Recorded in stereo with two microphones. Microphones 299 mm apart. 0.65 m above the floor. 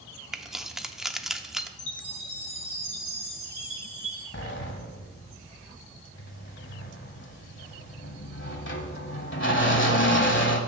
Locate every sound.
0.3 s keys jangling: centre (ahead or behind), 0.6 m
1.8 s a chime: 85° left, 2.5 m
4.3 s a sliding door: 40° left (ahead or behind), 1.1 m